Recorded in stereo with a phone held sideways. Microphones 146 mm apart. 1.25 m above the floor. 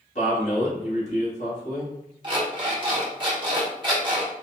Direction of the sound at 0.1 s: 50° left (ahead or behind).